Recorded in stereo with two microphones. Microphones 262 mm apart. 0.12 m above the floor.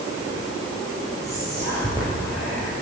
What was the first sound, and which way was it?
Whispering, 10° left (ahead or behind).